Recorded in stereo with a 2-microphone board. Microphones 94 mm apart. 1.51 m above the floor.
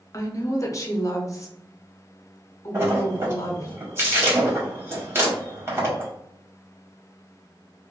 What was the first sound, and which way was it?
A woman speaking, 35° left (ahead or behind).